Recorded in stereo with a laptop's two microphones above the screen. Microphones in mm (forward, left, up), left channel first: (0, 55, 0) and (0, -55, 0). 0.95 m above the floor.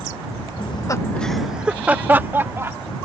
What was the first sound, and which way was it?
Laughter, 55° left (ahead or behind).